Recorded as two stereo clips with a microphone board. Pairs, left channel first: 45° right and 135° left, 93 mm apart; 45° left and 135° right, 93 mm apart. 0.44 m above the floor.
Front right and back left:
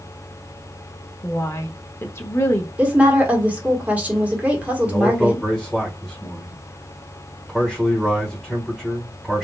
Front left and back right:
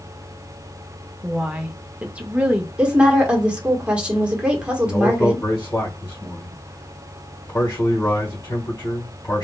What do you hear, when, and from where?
1.2 s a woman speaking: 70° right, 0.8 m
2.8 s a woman speaking: 170° left, 1.3 m
4.8 s a man speaking: 50° left, 1.4 m